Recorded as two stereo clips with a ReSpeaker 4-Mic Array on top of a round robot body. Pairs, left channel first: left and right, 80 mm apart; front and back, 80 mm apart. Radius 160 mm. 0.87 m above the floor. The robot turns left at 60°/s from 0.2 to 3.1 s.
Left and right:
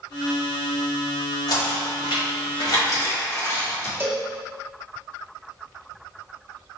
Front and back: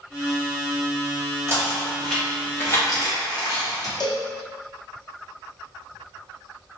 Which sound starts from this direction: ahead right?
A cowbell, at 4.0 s.